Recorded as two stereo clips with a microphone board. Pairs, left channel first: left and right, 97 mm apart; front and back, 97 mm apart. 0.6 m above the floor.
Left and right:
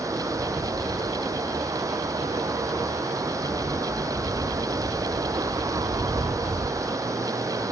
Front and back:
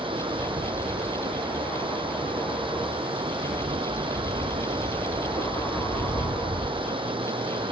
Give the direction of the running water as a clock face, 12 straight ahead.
5 o'clock.